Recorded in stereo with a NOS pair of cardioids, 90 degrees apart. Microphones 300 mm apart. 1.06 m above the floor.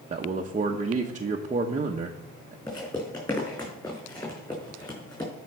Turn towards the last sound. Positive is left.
turn(degrees=15)